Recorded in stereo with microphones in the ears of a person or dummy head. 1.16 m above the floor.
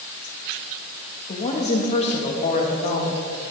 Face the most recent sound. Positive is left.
turn(degrees=35)  # may be behind; listen again after turning